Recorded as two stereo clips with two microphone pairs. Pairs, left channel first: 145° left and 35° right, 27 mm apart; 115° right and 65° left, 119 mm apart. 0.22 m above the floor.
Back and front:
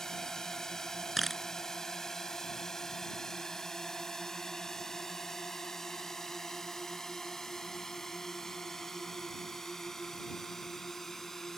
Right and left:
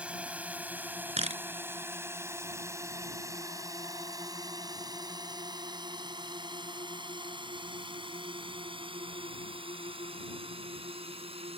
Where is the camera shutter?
60° left.